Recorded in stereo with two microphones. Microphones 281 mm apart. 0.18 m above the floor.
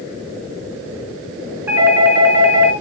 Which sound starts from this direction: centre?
A doorbell, at 1.7 s.